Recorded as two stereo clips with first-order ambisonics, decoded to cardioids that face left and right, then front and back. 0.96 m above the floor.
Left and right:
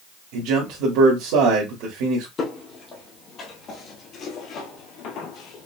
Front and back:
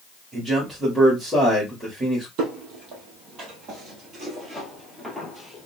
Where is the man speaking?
95° right, 1.6 m.